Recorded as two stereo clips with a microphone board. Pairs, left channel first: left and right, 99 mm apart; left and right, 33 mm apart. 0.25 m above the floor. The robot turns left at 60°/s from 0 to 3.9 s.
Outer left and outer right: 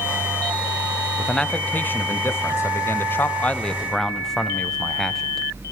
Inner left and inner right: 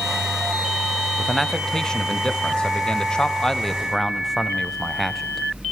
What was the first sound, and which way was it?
A man speaking, 5° left (ahead or behind).